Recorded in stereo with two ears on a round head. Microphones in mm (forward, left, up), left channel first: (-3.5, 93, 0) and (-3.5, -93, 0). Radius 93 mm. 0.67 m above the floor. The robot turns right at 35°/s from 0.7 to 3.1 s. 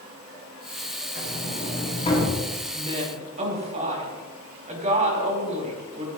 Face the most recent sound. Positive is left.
turn(degrees=-35)  # may be behind; listen again after turning